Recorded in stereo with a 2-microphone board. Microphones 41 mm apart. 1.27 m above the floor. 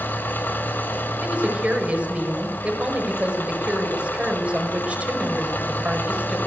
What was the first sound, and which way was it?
An engine running, 55° left (ahead or behind).